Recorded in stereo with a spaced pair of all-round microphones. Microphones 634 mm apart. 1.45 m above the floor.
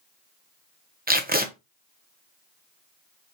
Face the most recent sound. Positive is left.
turn(degrees=-15)  # may be behind; listen again after turning